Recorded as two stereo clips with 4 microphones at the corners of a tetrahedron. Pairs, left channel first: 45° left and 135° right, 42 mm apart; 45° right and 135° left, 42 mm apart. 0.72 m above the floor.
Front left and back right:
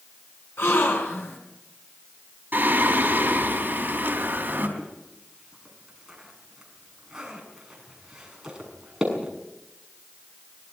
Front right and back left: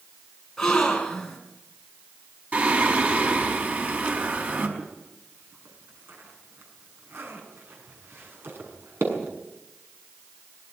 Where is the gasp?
35° left, 6 m.